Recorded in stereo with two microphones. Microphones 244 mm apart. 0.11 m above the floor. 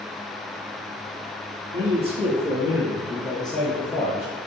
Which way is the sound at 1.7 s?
30° right (ahead or behind).